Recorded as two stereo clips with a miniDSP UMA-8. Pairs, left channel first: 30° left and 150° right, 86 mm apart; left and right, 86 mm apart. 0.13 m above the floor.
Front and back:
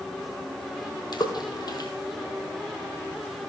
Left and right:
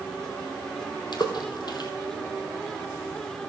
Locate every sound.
1.1 s a splash: 65° left, 1.7 m